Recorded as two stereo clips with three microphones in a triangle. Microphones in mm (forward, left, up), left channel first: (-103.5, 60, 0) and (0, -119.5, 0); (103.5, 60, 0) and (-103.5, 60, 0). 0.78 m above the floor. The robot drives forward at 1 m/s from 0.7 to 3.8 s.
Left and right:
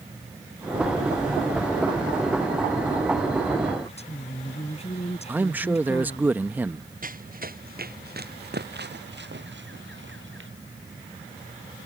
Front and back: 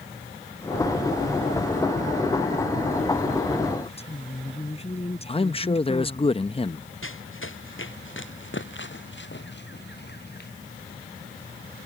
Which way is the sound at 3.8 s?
60° left.